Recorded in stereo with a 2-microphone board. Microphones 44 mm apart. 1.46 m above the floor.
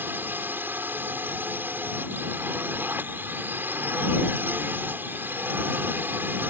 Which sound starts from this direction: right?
A drone, at 0.0 s.